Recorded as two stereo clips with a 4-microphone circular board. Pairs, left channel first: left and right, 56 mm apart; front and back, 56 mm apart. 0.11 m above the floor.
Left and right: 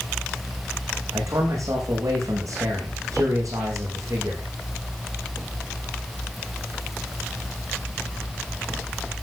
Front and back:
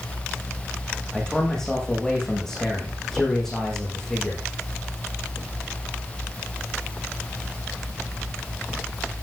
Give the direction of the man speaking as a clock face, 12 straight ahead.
3 o'clock.